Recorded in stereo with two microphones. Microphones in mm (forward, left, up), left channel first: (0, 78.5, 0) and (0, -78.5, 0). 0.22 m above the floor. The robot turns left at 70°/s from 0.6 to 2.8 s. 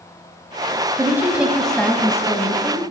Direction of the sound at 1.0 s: 20° right (ahead or behind).